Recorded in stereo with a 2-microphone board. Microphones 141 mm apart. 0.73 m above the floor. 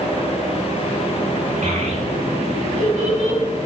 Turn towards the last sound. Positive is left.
turn(degrees=-60)  # may be behind; listen again after turning